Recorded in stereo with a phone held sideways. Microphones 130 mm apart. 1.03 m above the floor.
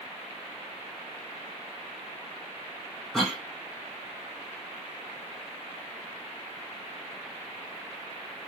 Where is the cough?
Centre (ahead or behind), 0.6 m.